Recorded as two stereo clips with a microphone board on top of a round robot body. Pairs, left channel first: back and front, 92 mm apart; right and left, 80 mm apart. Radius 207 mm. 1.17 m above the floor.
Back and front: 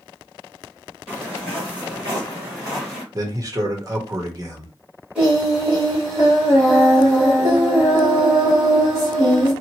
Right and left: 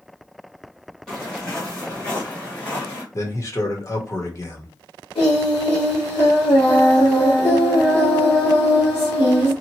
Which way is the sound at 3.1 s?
45° right.